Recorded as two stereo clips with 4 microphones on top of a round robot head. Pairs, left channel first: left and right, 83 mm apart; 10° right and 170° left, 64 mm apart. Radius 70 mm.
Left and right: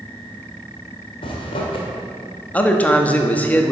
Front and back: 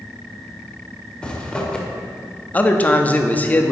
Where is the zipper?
65° left, 1.0 m.